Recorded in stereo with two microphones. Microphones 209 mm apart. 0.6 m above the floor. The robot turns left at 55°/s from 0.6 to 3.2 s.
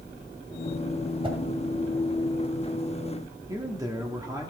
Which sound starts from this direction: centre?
A man speaking, at 3.5 s.